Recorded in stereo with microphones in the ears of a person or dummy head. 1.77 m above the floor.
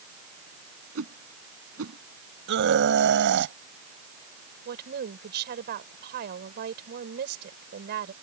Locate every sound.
0.9 s a whoosh: 85° right
2.5 s a scream: 70° right (ahead or behind)
4.7 s a woman speaking: 55° right (ahead or behind)